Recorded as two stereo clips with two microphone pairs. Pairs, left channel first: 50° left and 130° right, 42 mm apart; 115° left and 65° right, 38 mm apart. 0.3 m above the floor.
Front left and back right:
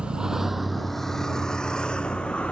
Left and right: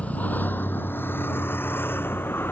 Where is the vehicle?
165° left; by 2.5 s 110° left.